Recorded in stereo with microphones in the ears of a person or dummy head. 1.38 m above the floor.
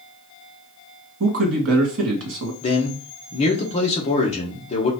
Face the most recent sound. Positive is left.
turn(degrees=30)  # may be behind; listen again after turning